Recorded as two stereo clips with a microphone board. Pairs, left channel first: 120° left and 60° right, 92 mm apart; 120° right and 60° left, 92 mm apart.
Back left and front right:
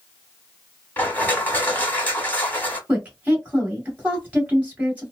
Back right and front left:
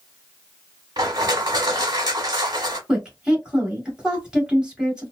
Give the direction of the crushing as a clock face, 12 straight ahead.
10 o'clock.